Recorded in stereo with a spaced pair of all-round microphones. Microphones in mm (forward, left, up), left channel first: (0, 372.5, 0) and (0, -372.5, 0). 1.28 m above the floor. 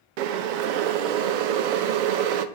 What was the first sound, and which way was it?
Boiling, 90° right.